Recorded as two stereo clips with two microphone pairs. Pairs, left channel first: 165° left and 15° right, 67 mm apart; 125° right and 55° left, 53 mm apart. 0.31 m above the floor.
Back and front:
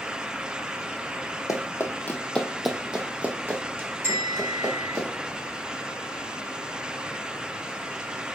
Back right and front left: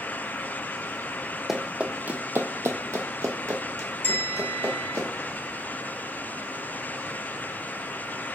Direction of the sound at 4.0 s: 40° left.